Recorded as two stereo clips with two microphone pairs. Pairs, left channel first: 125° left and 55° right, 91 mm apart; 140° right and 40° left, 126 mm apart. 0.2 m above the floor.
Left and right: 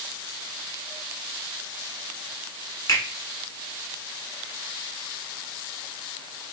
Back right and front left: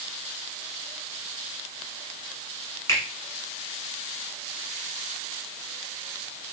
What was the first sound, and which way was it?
A finger snap, 165° left.